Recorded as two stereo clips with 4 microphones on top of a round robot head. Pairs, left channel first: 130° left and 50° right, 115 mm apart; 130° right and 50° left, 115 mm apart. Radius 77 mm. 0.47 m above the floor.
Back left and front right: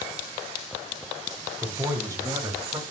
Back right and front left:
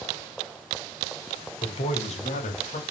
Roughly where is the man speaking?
Right.